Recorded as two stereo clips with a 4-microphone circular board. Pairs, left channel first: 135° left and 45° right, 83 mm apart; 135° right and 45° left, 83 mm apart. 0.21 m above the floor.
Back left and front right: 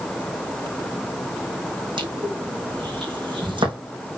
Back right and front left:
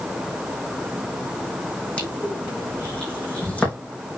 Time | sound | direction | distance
2.0 | crushing | 60° right | 4.5 m